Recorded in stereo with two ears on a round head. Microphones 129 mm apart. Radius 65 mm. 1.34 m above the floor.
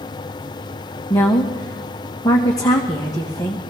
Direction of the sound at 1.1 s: 25° left (ahead or behind).